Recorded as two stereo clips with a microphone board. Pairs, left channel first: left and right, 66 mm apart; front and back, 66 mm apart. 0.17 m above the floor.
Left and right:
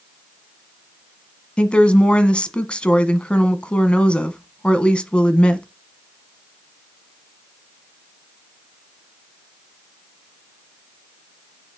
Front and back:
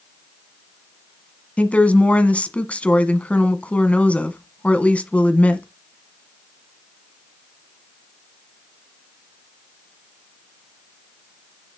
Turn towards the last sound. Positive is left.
turn(degrees=40)